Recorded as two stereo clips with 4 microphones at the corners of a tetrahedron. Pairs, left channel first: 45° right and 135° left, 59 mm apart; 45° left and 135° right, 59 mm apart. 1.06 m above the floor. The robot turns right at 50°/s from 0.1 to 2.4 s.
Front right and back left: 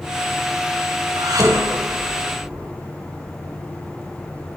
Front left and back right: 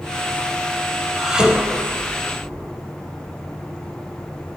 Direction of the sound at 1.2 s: 135° left.